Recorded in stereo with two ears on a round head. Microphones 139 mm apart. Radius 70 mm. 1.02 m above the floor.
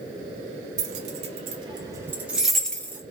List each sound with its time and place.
0.8 s keys jangling: 50° right (ahead or behind), 1.1 m; by 3.0 s 15° left (ahead or behind), 0.9 m